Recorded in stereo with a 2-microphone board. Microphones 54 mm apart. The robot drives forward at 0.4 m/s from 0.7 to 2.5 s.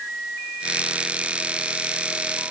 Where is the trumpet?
No trumpet in this recording.